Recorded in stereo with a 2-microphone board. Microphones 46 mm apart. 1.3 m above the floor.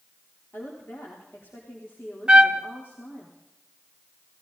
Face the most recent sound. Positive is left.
turn(degrees=-20)  # may be behind; listen again after turning